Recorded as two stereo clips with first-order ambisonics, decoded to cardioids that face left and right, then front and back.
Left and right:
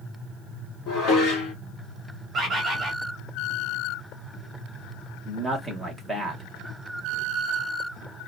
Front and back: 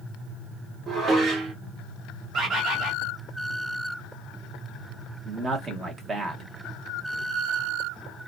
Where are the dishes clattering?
120° left, 1.2 m.